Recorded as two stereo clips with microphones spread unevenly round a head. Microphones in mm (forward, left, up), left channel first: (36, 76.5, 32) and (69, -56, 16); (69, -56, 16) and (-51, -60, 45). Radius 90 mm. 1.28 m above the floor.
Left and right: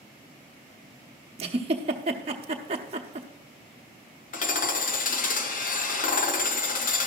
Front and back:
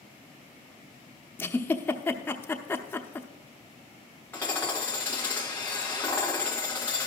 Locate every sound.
1.4 s a giggle: 85° right, 0.8 m
4.3 s hammering: 80° left, 1.2 m